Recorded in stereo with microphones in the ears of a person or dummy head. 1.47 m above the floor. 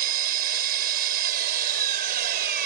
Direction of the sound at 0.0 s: 50° right (ahead or behind).